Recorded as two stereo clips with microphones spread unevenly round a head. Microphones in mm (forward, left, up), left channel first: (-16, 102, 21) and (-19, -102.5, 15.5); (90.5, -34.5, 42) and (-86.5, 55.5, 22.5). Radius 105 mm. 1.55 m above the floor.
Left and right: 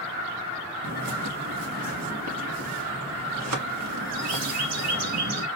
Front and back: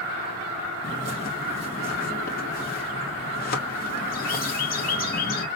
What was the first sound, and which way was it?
A bird, 75° right.